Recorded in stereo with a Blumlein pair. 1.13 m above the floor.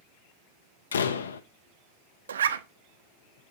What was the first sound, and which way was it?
A door slam, 65° left.